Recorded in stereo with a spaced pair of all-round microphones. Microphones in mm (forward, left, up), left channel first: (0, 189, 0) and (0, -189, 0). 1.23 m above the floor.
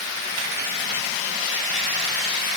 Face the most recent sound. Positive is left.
No sound to turn to.